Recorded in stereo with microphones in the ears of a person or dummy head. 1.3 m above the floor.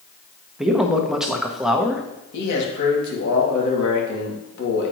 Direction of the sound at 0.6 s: 5° right (ahead or behind).